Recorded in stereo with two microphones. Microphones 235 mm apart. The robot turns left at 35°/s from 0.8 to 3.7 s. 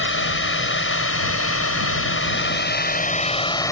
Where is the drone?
115° left; by 3.7 s 15° left.